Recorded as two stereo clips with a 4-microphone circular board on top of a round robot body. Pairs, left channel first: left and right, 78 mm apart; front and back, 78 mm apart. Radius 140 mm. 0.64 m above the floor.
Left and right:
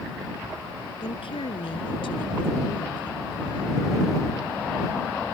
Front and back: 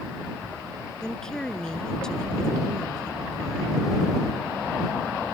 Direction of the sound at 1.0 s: 85° left.